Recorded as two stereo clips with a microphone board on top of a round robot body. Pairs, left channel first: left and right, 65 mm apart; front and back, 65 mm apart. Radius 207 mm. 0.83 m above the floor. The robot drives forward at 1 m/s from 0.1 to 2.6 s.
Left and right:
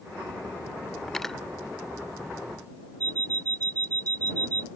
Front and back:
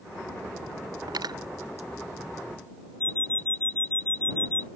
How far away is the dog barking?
No dog barking in this recording.